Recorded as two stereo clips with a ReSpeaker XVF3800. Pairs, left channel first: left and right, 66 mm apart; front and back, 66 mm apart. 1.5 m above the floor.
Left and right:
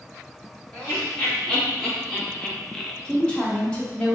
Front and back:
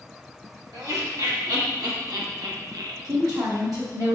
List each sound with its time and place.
0.7 s laughter: 165° left, 1.7 m; by 2.9 s 175° left, 0.6 m
3.0 s a woman speaking: 165° left, 1.3 m